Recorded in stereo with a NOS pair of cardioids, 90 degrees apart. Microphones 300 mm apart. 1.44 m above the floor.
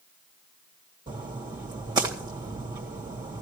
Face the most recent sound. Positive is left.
turn(degrees=-15)